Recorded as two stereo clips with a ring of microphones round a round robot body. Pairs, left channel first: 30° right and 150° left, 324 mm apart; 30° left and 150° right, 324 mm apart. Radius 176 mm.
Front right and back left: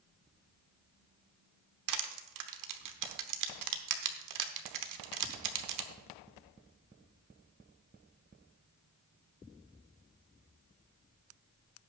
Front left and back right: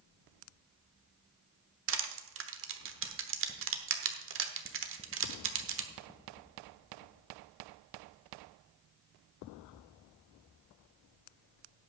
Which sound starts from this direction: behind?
Crushing, at 1.9 s.